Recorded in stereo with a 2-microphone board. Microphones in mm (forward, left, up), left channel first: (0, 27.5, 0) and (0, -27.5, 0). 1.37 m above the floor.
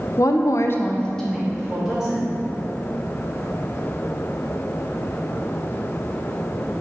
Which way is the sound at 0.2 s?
65° left (ahead or behind).